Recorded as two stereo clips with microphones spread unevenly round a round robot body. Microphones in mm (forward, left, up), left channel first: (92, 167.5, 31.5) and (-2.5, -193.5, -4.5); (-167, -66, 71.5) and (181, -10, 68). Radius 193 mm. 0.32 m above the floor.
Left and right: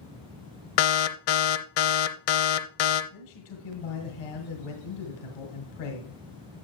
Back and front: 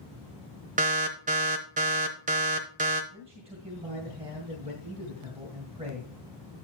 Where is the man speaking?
80° left, 2 m.